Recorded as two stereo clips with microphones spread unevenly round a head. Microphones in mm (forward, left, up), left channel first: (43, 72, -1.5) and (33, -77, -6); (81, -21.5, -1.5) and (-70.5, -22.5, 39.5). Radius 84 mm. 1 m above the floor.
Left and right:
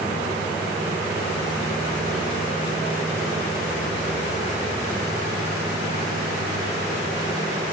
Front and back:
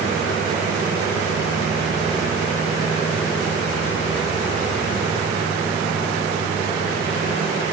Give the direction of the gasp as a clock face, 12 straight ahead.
No gasp in this recording.